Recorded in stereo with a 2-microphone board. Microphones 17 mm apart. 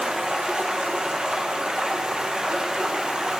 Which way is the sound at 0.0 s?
60° right (ahead or behind).